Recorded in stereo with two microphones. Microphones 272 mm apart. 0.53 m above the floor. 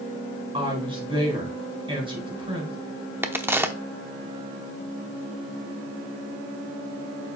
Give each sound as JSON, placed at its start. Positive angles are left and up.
{"t": 0.5, "sound": "a woman speaking", "side_deg": -20, "distance_m": 4.5}
{"t": 3.2, "sound": "a crack", "side_deg": -10, "distance_m": 0.8}